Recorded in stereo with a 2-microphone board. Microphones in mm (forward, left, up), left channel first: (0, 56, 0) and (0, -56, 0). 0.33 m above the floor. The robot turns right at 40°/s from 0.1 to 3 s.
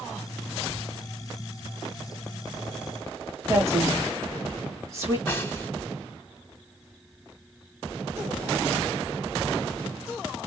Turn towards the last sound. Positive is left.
turn(degrees=20)  # may be behind; listen again after turning